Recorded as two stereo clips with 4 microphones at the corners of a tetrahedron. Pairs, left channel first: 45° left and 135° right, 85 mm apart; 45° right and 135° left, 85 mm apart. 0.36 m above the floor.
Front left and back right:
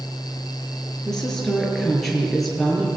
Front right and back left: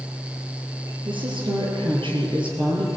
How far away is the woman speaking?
About 7 m.